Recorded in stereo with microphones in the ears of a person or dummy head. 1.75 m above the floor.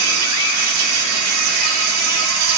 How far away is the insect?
About 2.5 m.